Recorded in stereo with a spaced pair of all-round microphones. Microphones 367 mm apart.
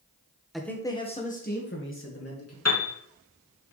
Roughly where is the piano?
Left.